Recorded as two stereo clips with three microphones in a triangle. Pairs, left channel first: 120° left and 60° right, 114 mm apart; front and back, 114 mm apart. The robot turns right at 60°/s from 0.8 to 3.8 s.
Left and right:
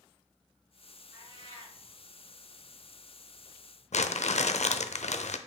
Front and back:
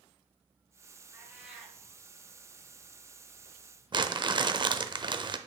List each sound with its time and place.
1.1 s a cat meowing: 120° right, 3 m; by 1.8 s 85° right, 3 m
3.9 s crumpling: 130° left, 0.6 m